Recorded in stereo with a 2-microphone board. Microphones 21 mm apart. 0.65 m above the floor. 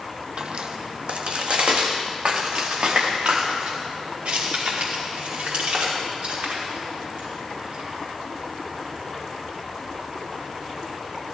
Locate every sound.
0.4 s footsteps: 45° right (ahead or behind), 1.2 m; by 7.9 s 70° right (ahead or behind), 9 m